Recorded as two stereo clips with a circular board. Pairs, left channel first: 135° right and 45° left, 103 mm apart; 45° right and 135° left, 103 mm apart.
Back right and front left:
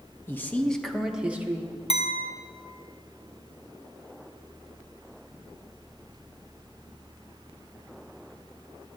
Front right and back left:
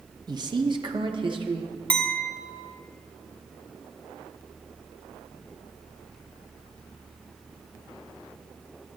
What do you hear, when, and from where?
0.3 s a man speaking: 165° left, 0.9 m; by 1.7 s 110° left, 1.1 m
1.9 s a clink: 120° right, 0.6 m